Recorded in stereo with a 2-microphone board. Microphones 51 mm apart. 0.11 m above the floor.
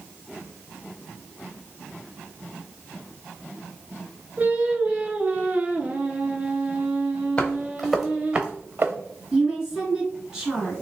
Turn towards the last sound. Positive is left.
turn(degrees=-10)  # may be behind; listen again after turning